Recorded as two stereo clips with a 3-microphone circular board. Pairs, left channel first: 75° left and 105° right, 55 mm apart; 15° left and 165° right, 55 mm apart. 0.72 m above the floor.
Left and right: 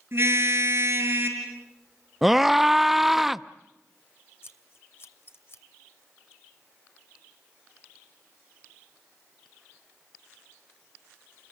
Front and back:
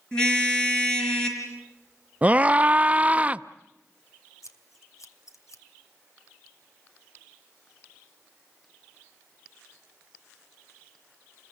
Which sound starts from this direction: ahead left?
Scissors, at 4.4 s.